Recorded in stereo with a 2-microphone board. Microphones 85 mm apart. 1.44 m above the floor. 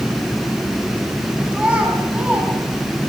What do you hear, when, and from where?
1.5 s a child speaking: 15° right (ahead or behind), 6.5 m